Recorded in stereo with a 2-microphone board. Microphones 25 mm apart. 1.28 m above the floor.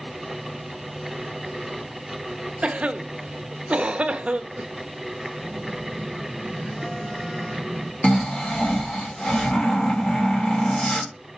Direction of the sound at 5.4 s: 20° left (ahead or behind).